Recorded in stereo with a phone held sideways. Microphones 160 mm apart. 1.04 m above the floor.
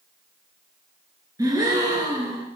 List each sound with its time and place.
1.4 s a gasp: 20° right (ahead or behind), 2 m